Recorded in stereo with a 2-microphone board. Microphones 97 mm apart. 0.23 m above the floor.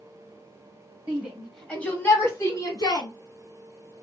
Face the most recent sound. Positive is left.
turn(degrees=45)  # may be behind; listen again after turning